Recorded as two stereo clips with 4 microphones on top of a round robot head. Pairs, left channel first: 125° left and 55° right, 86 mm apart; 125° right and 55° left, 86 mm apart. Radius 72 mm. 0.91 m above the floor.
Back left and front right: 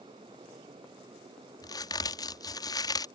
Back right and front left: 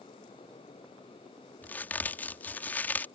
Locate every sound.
1.6 s a crack: 165° left